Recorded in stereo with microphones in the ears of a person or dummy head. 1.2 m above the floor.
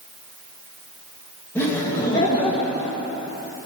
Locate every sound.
1.6 s laughter: 15° left (ahead or behind), 1.8 m; by 3.0 s 40° left (ahead or behind), 2 m